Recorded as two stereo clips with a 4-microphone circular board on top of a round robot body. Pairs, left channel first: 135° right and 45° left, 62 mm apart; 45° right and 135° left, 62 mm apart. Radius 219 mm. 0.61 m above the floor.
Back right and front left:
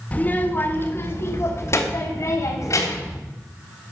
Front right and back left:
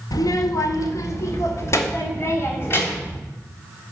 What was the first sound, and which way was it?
A child speaking, 65° right.